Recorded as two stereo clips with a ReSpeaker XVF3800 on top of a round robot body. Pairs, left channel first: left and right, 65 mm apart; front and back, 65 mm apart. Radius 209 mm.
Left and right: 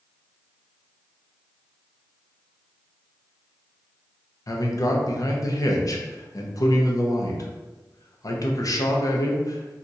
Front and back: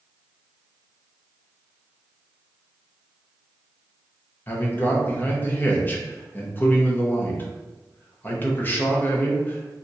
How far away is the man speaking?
About 0.9 m.